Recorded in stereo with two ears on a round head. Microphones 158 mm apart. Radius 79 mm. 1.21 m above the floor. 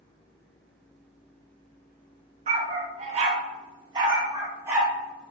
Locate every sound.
2.5 s a dog barking: 40° right (ahead or behind), 0.8 m; by 4.9 s 15° right (ahead or behind), 1.3 m